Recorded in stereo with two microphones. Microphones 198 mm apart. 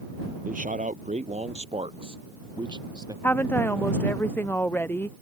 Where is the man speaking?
45° right (ahead or behind); by 3.1 s 20° right (ahead or behind).